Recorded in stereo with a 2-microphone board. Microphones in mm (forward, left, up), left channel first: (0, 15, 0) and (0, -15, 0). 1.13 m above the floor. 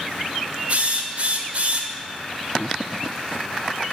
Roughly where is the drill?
Right.